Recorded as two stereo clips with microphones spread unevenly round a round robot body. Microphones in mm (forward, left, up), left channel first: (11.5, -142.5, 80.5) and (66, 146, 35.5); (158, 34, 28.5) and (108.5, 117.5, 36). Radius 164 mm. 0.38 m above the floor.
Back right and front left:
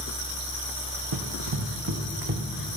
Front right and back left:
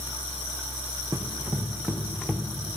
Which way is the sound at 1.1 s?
65° left.